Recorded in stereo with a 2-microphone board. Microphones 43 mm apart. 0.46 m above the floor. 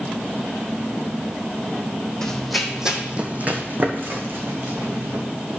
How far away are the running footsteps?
About 1.3 m.